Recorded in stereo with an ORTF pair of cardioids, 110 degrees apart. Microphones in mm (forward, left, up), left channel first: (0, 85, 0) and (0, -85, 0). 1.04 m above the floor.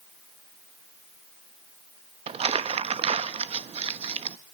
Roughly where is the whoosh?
I don't hear a whoosh.